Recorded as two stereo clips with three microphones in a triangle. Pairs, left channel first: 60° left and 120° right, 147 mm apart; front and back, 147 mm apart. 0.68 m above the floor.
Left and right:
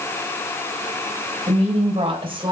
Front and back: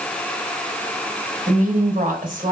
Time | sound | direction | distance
1.5 | a woman speaking | 160° right | 3.5 m